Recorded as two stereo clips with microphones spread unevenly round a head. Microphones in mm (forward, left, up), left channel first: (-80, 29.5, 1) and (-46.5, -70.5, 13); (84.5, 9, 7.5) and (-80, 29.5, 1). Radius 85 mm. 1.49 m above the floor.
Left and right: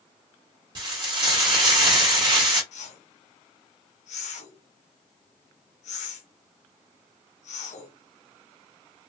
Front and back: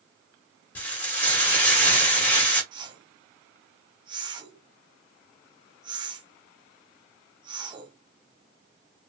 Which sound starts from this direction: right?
Frying, at 0.8 s.